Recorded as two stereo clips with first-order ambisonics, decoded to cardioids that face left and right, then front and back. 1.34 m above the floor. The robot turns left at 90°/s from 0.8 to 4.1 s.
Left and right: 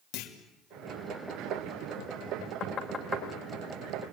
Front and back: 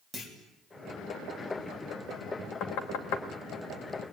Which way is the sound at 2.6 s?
40° left.